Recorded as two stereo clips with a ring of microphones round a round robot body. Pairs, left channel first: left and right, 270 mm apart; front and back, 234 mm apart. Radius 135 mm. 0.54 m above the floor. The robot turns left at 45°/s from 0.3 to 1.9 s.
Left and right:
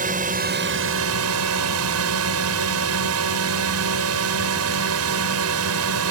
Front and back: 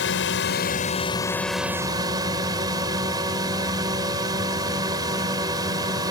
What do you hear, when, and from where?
0.0 s a drone: 35° right; by 6.1 s 105° right